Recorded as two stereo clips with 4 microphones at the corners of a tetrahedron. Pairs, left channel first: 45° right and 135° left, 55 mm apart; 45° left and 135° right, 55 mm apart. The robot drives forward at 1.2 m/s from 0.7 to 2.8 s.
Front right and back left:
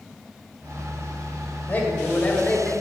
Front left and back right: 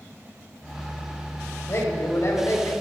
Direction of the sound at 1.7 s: 15° left.